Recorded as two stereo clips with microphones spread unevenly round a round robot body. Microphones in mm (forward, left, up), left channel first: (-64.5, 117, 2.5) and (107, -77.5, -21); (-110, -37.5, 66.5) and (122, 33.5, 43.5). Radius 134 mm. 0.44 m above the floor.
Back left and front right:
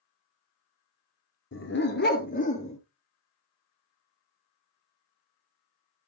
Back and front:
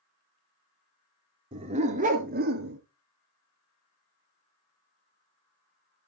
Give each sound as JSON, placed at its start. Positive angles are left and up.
{"t": 1.5, "sound": "a dog barking", "azimuth_deg": 85, "distance_m": 1.9}